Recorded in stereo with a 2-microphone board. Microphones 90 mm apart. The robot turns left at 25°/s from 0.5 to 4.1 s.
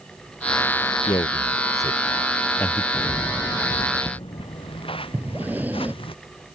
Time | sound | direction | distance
1.1 | a man speaking | 55° left (ahead or behind) | ?
2.9 | footsteps | 35° left (ahead or behind) | ?
5.1 | breathing | 20° right (ahead or behind) | ?